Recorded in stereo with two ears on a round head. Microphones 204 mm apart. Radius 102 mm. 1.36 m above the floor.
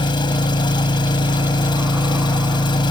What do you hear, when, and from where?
0.0 s an engine running: 20° left (ahead or behind)